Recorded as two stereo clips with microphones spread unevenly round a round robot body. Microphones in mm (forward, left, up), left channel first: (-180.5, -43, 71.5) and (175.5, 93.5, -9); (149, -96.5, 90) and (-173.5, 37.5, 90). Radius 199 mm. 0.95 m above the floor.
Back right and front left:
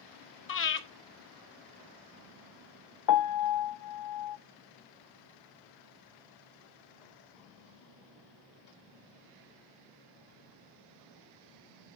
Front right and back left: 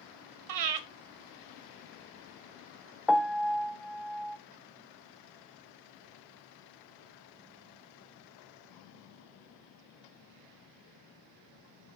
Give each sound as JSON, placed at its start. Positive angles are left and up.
{"t": 0.5, "sound": "breathing", "azimuth_deg": 140, "distance_m": 1.3}
{"t": 3.1, "sound": "a piano", "azimuth_deg": -115, "distance_m": 0.6}